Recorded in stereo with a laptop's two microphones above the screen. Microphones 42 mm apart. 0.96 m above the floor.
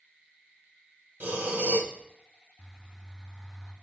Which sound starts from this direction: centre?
A bird, at 2.6 s.